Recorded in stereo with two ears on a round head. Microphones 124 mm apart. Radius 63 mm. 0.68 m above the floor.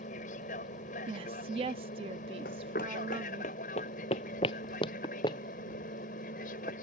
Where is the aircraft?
60° left (ahead or behind); by 6.8 s 65° left (ahead or behind).